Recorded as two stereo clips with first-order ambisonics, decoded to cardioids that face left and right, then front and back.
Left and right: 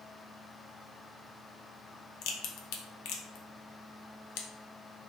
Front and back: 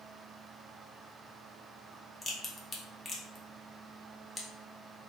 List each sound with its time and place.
2.2 s a crack: 80° left, 0.5 m